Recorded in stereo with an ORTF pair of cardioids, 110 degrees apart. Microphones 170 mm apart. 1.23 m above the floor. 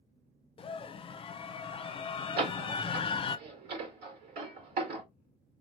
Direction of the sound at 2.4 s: 70° right.